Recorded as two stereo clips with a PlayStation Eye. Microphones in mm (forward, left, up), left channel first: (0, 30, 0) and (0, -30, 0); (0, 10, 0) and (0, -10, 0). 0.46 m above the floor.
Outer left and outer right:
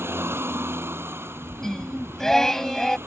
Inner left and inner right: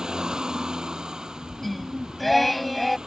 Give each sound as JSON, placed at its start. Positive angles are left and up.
{"t": 0.0, "sound": "a vehicle", "side_deg": -45}
{"t": 1.6, "sound": "singing", "side_deg": 10}